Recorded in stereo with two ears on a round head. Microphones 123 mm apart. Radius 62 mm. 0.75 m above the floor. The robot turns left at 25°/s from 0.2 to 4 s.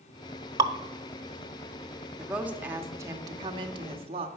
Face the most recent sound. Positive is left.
turn(degrees=-55)